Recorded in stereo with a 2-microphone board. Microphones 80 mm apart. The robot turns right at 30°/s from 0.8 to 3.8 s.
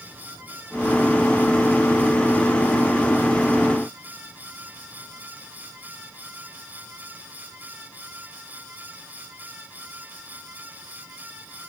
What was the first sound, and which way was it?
Only background noise.